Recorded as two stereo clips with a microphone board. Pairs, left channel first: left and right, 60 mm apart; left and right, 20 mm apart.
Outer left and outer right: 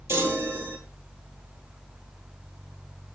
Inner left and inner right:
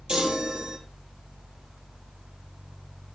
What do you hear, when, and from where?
0.1 s a chime: 40° right (ahead or behind), 3 m